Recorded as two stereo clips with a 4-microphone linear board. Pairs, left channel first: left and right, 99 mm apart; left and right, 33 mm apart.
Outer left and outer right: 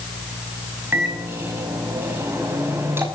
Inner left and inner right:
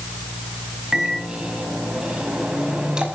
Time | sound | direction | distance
0.9 | a microwave | 25° right (ahead or behind) | 5 m